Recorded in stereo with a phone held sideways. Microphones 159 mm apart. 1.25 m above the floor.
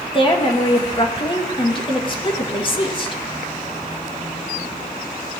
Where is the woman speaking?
35° left (ahead or behind), 1.7 m.